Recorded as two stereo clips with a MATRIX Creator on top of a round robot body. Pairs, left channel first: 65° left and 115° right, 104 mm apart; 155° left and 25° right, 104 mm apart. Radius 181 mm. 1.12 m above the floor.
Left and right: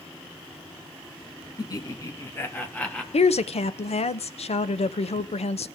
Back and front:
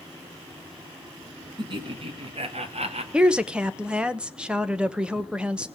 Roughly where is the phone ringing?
I don't hear a phone ringing.